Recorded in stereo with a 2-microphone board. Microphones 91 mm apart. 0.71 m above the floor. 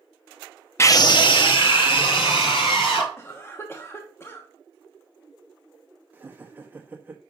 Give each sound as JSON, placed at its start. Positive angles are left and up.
{"t": 0.8, "sound": "a scream", "side_deg": 30, "distance_m": 0.6}
{"t": 3.2, "sound": "a cough", "side_deg": 25, "distance_m": 1.0}
{"t": 6.1, "sound": "laughter", "side_deg": -20, "distance_m": 1.0}